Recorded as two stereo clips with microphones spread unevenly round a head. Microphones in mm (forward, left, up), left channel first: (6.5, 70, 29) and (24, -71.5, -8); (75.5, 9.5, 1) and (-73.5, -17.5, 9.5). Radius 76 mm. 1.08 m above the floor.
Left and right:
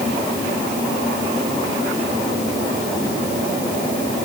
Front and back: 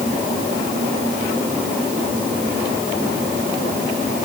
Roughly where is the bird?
I don't hear a bird.